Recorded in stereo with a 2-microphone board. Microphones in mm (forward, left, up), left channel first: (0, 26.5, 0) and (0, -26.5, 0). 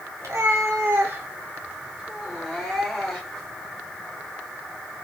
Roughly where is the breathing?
No breathing in this recording.